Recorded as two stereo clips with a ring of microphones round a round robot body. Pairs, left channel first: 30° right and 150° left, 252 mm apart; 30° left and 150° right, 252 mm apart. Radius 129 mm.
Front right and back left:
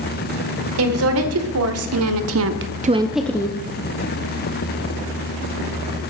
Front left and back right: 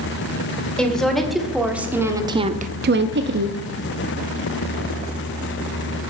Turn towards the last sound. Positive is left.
turn(degrees=-100)